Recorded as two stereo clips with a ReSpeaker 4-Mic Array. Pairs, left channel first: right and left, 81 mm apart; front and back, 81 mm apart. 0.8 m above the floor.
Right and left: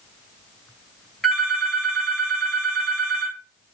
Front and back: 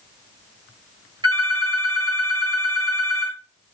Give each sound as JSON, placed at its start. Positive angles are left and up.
{"t": 1.2, "sound": "a phone ringing", "azimuth_deg": -175, "distance_m": 2.0}